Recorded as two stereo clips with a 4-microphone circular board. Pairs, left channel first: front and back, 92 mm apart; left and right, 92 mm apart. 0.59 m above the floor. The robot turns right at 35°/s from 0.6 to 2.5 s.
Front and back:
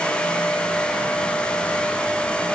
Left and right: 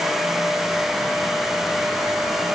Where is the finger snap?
I don't hear a finger snap.